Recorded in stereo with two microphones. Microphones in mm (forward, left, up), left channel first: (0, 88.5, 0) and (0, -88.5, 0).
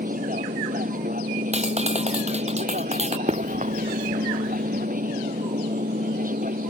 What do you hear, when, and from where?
0.0 s an aircraft: 50° right (ahead or behind)
1.5 s a clap: 40° right (ahead or behind)
3.3 s running footsteps: 40° right (ahead or behind); by 4.9 s 60° right (ahead or behind)